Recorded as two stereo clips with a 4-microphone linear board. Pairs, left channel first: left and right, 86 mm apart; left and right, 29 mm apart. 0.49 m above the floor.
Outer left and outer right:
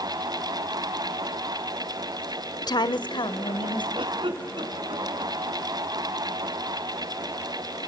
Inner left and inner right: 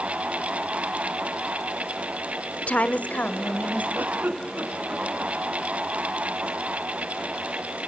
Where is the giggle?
80° right, 3.5 m.